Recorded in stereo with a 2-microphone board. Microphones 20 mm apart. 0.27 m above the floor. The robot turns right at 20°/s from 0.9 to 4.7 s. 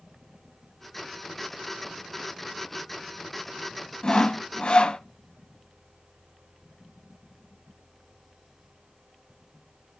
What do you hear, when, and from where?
4.0 s sawing: 45° left (ahead or behind), 0.8 m; by 5.0 s 50° left (ahead or behind), 0.8 m